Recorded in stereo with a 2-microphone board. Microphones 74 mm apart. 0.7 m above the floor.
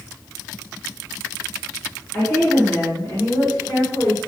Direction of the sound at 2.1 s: 15° left (ahead or behind).